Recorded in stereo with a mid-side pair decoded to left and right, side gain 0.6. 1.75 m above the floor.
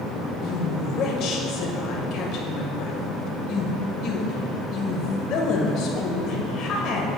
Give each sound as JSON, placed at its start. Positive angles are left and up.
{"t": 0.4, "sound": "a woman speaking", "azimuth_deg": 60, "distance_m": 1.6}